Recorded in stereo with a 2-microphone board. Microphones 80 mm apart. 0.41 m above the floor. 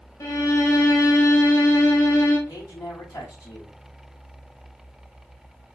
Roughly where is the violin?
Left.